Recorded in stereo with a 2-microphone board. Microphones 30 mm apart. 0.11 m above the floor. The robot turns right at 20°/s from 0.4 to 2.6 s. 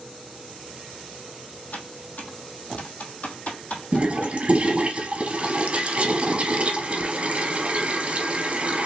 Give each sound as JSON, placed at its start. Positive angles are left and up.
{"t": 1.7, "sound": "typing on a keyboard", "side_deg": 75, "distance_m": 1.1}
{"t": 3.9, "sound": "a toilet flushing", "side_deg": -40, "distance_m": 0.9}